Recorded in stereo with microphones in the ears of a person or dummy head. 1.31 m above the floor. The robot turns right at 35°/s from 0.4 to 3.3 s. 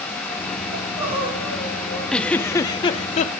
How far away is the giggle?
About 0.7 m.